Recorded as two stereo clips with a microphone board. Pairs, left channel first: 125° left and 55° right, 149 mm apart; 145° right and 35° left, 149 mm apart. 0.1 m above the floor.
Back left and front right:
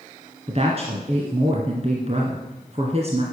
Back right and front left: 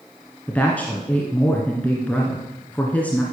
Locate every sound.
0.5 s a woman speaking: 70° right, 1.8 m